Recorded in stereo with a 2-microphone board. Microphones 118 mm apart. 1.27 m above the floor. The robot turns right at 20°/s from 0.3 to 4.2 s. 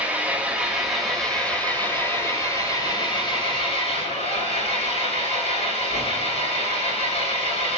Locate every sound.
0.0 s an engine running: 15° right, 6.5 m; by 7.8 s 65° left, 6.5 m